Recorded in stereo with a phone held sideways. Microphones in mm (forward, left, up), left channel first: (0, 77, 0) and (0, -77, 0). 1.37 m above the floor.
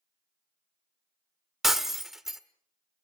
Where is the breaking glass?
Centre (ahead or behind), 1.3 m.